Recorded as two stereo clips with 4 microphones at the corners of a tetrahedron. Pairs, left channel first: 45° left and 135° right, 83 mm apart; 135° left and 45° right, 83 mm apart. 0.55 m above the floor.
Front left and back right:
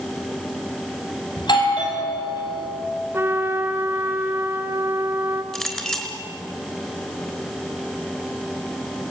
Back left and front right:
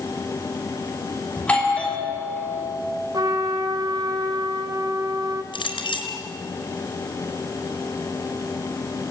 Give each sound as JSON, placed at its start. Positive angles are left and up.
{"t": 1.4, "sound": "a doorbell", "azimuth_deg": 60, "distance_m": 5.0}
{"t": 3.1, "sound": "a trumpet", "azimuth_deg": -75, "distance_m": 1.7}
{"t": 5.5, "sound": "a clink", "azimuth_deg": 125, "distance_m": 4.0}